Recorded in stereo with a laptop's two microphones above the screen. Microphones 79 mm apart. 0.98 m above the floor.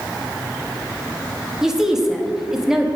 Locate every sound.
1.6 s a woman speaking: 5° right (ahead or behind), 1.4 m